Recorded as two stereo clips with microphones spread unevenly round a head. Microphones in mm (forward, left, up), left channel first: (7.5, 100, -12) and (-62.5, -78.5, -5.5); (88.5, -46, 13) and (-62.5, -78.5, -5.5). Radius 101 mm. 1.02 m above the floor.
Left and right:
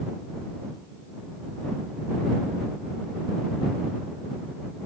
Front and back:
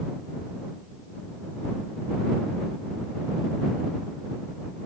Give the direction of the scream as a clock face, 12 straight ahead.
No scream in this recording.